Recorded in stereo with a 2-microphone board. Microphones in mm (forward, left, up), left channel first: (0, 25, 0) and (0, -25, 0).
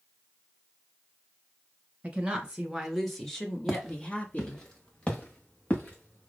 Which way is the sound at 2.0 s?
25° right (ahead or behind).